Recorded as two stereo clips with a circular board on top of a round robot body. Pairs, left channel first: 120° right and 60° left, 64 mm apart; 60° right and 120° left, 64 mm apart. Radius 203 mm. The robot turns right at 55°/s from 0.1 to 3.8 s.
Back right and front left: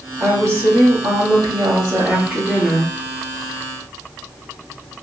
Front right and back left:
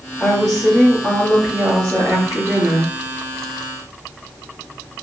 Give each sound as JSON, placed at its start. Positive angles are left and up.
{"t": 0.2, "sound": "a woman speaking", "azimuth_deg": 10, "distance_m": 2.0}